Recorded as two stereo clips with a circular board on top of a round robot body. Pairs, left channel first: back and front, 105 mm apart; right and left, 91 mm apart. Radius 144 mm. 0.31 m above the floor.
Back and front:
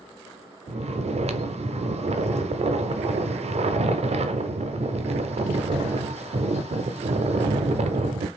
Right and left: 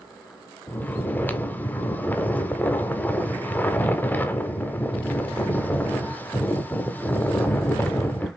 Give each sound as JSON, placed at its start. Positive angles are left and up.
{"t": 0.7, "sound": "snoring", "azimuth_deg": -20, "distance_m": 0.5}